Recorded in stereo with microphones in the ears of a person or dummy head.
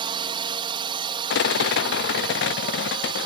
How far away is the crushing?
I don't hear crushing.